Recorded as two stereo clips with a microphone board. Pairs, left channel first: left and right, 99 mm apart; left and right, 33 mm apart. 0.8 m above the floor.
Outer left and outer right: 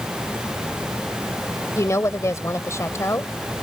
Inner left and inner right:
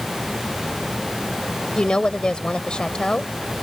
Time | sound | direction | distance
1.8 | a woman speaking | 30° left (ahead or behind) | ?